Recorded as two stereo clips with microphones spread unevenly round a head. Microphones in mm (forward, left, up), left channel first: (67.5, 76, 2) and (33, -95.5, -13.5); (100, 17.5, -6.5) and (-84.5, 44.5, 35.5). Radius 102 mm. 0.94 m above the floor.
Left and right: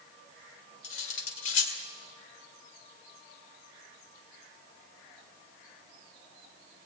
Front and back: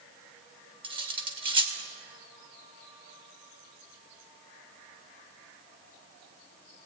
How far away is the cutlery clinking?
About 2 m.